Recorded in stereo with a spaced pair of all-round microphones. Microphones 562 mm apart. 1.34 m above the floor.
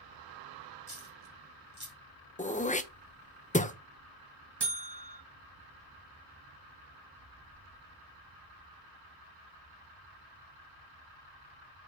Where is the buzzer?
45° right (ahead or behind), 1.5 m.